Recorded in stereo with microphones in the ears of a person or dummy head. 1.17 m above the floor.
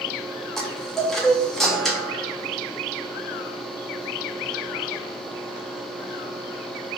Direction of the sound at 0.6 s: 5° left (ahead or behind).